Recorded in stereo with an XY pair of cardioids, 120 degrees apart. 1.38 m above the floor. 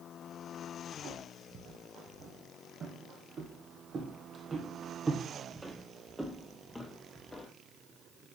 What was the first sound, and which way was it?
Footsteps, 65° right.